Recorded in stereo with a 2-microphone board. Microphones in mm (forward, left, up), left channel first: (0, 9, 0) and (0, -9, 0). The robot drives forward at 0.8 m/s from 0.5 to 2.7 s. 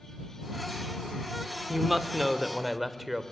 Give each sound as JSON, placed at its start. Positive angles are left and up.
{"t": 1.7, "sound": "a woman speaking", "side_deg": -15, "distance_m": 1.0}